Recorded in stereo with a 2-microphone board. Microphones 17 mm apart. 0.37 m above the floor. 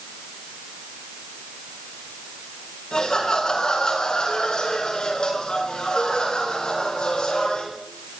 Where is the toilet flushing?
I don't hear a toilet flushing.